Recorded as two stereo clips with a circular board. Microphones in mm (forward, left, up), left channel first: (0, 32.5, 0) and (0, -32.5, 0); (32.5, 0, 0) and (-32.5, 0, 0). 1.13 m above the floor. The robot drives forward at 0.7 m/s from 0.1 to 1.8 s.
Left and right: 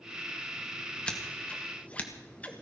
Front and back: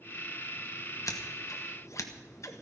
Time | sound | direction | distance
1.1 | scissors | 15° left | 1.9 m